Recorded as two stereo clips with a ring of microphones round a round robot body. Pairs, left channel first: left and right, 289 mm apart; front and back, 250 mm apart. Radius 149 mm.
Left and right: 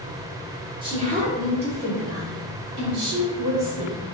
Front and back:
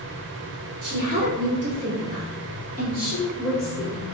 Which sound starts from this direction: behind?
A woman speaking, at 0.8 s.